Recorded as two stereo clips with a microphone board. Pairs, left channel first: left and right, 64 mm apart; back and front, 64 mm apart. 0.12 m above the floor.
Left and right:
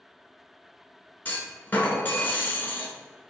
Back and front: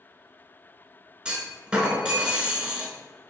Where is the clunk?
65° left, 0.8 m.